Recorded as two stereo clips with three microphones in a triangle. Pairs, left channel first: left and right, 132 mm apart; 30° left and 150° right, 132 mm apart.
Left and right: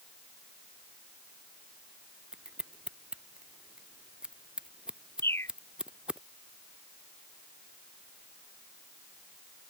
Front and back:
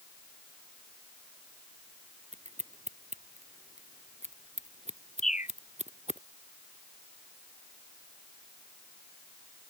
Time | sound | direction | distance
2.3 | scissors | 175° right | ?
5.2 | a bird | 20° left | ?